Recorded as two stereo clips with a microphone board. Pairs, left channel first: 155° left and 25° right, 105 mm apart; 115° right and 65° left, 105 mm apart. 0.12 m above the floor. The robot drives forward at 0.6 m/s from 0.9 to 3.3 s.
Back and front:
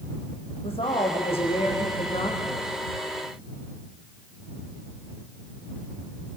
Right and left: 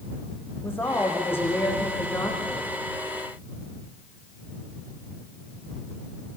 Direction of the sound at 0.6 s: Straight behind.